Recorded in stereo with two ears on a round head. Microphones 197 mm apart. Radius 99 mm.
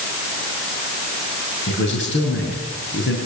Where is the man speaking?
55° left (ahead or behind), 7 m.